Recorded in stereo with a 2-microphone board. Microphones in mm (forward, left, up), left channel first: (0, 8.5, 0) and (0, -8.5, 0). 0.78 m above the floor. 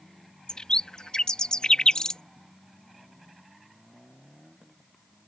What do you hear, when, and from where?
0.5 s a bird: 45° left (ahead or behind)